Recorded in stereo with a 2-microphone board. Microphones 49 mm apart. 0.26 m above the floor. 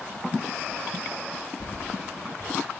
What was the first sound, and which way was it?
Keys jangling, 60° left (ahead or behind).